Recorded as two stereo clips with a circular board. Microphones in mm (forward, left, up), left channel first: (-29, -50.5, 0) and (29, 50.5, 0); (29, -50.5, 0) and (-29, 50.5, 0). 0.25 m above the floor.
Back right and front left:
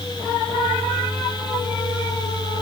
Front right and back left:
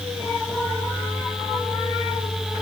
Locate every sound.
Only background noise.